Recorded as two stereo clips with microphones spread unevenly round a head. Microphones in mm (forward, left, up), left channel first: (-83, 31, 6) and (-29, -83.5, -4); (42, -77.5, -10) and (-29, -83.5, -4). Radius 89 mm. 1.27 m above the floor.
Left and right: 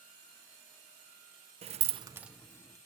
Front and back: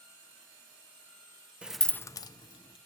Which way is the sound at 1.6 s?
100° right.